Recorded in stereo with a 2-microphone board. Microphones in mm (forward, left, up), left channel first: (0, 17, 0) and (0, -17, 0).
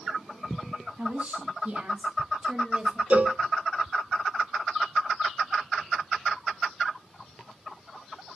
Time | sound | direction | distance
1.0 | a woman speaking | 35° right (ahead or behind) | 2 m
3.1 | a cowbell | 50° right (ahead or behind) | 0.7 m